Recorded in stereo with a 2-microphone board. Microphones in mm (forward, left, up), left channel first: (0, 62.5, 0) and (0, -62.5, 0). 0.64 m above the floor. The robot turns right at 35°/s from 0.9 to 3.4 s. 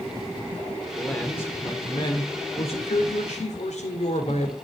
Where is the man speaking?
5° left, 2 m; by 4.5 s 90° left, 2 m.